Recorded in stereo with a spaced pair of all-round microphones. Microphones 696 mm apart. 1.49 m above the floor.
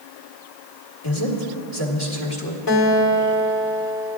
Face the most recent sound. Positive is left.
turn(degrees=50)  # may be behind; listen again after turning